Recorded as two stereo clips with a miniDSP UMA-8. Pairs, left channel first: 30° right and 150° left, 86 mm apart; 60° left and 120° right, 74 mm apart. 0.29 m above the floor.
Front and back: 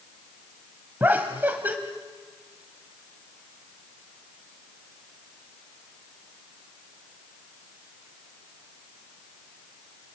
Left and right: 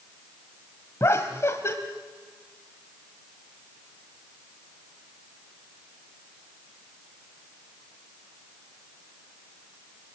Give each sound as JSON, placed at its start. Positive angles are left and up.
{"t": 1.0, "sound": "laughter", "azimuth_deg": 90, "distance_m": 1.3}